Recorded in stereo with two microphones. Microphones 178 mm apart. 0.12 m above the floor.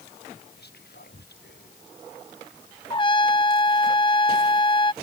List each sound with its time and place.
0.6 s whispering: 65° left (ahead or behind)
2.9 s a trumpet: 30° left (ahead or behind)